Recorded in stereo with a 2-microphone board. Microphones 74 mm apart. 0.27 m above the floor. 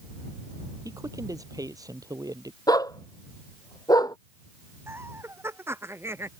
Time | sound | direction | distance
0.8 | a man speaking | 50° right (ahead or behind) | ?
2.7 | a dog barking | 55° left (ahead or behind) | ?
4.9 | laughter | 35° right (ahead or behind) | ?